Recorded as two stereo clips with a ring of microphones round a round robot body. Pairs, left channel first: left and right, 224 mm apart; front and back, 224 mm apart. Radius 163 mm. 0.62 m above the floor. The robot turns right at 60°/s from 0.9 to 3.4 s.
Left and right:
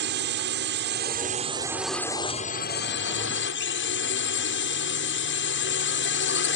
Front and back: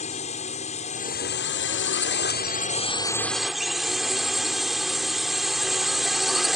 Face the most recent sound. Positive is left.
turn(degrees=90)